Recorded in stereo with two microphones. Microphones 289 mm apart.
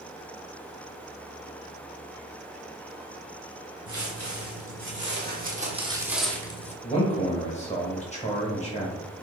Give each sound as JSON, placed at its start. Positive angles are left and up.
{"t": 3.9, "sound": "footsteps", "side_deg": -55, "distance_m": 1.6}
{"t": 6.8, "sound": "a man speaking", "side_deg": 25, "distance_m": 0.9}